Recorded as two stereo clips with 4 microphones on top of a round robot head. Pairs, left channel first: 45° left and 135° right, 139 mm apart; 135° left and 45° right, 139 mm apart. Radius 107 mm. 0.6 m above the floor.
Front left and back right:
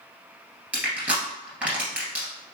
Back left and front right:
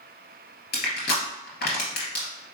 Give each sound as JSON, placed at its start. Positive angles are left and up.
{"t": 0.7, "sound": "crushing", "azimuth_deg": 145, "distance_m": 2.0}